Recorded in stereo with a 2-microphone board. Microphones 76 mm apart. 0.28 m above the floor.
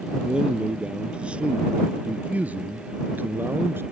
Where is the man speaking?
10° right (ahead or behind); by 3.8 s 30° right (ahead or behind).